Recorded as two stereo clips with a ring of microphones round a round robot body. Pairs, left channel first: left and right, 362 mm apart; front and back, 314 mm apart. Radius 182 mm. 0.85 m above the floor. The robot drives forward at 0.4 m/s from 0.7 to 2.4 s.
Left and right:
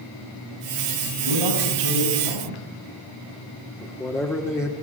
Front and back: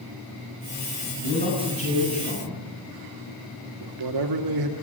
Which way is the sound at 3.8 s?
175° left.